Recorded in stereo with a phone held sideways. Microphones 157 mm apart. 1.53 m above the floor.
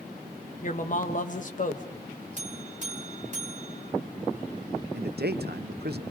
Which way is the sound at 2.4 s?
45° right (ahead or behind).